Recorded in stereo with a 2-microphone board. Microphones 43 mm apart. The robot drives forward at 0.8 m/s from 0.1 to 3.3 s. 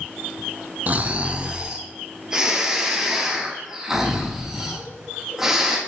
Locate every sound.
0.9 s snoring: 40° right (ahead or behind), 0.6 m; by 5.8 s 10° right (ahead or behind), 2 m